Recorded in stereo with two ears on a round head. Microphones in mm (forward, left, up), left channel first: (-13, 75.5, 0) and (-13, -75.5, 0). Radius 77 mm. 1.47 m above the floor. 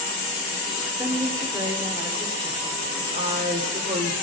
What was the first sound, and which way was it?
A woman speaking, 20° right (ahead or behind).